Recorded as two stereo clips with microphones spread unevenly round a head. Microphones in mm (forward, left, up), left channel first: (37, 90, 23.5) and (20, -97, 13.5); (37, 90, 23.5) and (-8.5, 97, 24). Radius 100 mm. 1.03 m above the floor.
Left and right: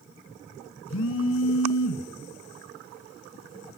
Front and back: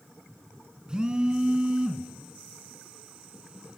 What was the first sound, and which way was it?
A phone buzzing, 100° left.